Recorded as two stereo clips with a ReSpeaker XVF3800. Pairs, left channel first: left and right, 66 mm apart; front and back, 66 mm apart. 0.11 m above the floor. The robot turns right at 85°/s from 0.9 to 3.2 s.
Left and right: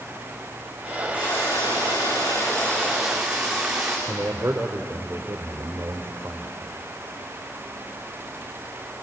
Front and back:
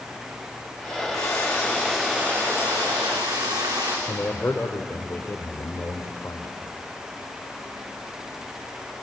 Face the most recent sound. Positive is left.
turn(degrees=-45)